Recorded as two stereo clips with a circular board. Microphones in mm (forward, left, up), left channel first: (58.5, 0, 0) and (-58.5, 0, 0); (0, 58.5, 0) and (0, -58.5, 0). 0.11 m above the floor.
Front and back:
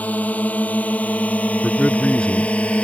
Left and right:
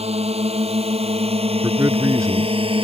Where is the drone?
75° right; by 2.8 s 80° right.